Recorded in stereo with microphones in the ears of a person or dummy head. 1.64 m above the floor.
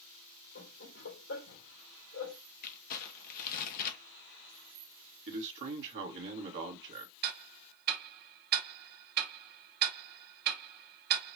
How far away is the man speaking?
About 1.8 m.